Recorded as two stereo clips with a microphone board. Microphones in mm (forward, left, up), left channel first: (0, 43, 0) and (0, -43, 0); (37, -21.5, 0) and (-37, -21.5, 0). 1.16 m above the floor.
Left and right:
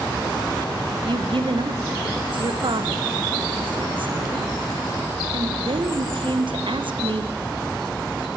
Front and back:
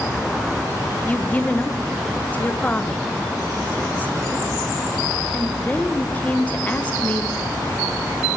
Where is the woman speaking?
70° right, 0.6 m.